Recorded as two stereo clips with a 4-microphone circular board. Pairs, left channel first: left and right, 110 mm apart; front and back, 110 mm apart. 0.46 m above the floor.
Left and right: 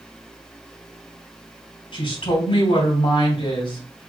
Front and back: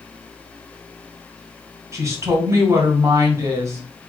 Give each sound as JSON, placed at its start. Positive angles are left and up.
{"t": 1.9, "sound": "a woman speaking", "azimuth_deg": 120, "distance_m": 3.0}